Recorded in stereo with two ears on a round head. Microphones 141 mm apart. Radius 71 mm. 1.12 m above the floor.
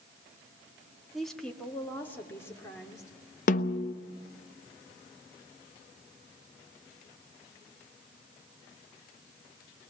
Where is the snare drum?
55° left (ahead or behind), 0.7 m.